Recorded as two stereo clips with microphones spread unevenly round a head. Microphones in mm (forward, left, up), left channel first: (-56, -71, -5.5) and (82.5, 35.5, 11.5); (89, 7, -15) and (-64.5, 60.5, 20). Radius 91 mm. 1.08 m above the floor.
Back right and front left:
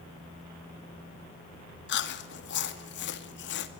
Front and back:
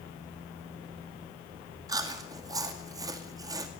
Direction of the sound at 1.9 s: 125° right.